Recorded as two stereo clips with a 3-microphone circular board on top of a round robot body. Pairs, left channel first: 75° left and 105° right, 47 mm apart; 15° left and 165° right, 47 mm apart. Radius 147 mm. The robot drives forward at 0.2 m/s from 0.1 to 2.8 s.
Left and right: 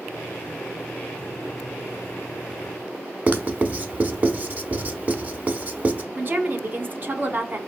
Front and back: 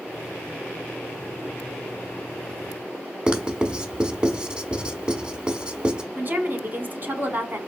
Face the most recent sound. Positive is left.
turn(degrees=-140)